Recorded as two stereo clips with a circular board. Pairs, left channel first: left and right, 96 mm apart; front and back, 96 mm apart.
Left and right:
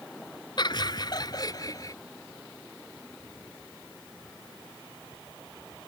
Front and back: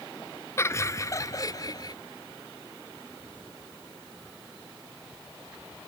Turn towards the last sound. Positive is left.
turn(degrees=45)